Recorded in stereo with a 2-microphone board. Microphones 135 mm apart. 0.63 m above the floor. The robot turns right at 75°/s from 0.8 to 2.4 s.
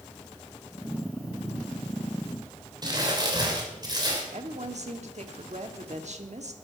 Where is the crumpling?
30° right (ahead or behind), 3 m.